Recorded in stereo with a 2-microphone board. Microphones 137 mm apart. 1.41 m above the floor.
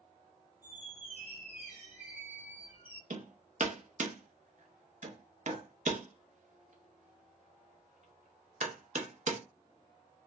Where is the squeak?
15° right (ahead or behind), 1.9 m.